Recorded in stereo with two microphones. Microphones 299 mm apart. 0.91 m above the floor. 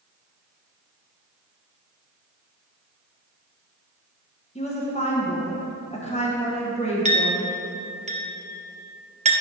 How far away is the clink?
About 0.5 m.